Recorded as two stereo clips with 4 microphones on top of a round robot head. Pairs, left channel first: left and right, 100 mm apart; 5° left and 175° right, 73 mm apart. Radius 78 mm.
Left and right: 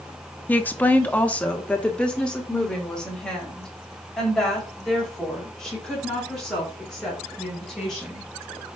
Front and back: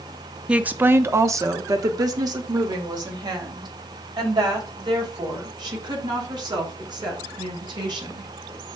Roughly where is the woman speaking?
Behind left.